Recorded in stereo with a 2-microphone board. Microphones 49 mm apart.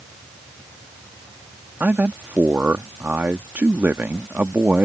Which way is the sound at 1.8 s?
40° right (ahead or behind).